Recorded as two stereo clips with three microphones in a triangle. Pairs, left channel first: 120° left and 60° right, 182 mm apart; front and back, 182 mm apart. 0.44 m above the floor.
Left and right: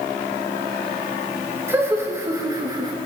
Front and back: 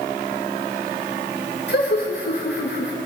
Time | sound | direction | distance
1.7 | laughter | 15° left | 5 m